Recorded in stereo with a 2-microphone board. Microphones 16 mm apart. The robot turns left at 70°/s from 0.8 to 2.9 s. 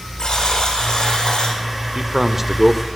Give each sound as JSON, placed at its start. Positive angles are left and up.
{"t": 0.2, "sound": "a buzzer", "azimuth_deg": 125, "distance_m": 9.0}
{"t": 1.9, "sound": "a man speaking", "azimuth_deg": -120, "distance_m": 1.6}